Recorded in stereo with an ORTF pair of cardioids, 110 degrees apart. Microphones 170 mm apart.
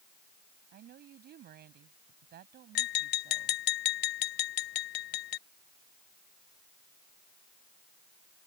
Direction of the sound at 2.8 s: 70° left.